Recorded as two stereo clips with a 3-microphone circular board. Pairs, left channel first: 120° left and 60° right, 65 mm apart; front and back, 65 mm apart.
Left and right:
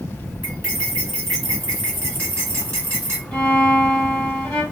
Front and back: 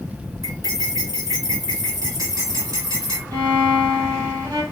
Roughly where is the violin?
Behind.